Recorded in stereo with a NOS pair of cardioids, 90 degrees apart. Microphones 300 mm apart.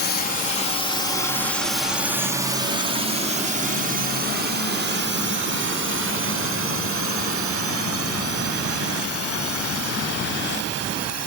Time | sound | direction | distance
0.0 | a drone | 35° left | ?